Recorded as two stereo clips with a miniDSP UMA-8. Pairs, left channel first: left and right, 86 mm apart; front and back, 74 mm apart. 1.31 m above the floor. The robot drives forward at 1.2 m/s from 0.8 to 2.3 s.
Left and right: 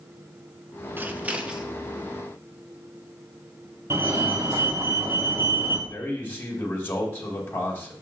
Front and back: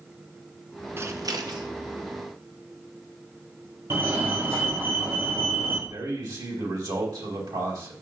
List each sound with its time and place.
1.0 s scissors: 145° right, 0.6 m; by 1.7 s 170° right, 1.3 m
3.9 s a fire alarm: 135° right, 1.5 m
5.9 s a man speaking: 155° left, 2.5 m